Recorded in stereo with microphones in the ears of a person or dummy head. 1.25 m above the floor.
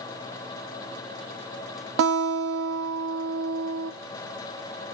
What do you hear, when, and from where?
2.0 s a guitar: 60° right (ahead or behind), 0.9 m